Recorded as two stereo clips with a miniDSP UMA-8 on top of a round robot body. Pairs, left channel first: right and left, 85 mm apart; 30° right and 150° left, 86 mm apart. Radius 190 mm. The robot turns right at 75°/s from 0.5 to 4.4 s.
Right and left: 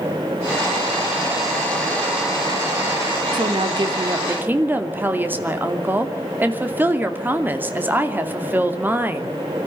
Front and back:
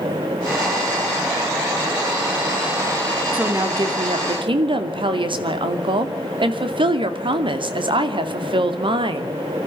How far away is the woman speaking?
About 2.5 m.